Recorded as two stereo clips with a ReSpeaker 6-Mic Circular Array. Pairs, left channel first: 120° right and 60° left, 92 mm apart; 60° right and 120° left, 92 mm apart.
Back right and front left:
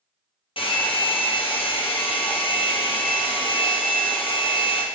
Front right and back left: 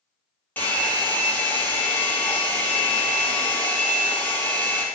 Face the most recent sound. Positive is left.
turn(degrees=-130)